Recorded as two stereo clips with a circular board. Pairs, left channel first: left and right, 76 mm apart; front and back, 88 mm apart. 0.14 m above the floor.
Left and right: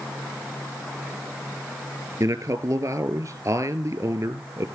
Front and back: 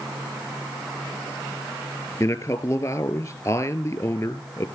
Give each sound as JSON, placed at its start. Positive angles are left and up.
{"t": 2.2, "sound": "a man speaking", "azimuth_deg": -45, "distance_m": 2.0}